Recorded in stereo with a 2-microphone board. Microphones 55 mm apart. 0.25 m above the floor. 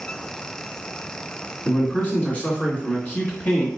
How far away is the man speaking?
About 2 m.